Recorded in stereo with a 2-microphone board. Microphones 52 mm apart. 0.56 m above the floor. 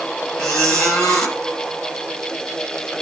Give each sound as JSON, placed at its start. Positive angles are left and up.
{"t": 0.4, "sound": "a squeak", "side_deg": 15, "distance_m": 5.0}